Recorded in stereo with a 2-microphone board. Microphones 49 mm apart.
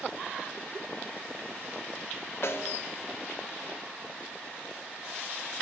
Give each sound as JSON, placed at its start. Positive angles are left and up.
{"t": 2.4, "sound": "a snare drum", "side_deg": 60, "distance_m": 0.7}